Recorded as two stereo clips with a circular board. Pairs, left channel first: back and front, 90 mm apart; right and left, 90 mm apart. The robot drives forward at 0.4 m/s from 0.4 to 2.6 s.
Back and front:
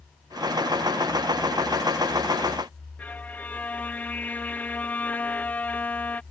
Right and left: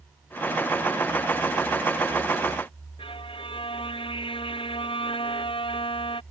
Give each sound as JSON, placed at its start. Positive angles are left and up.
{"t": 3.0, "sound": "a violin", "azimuth_deg": -105}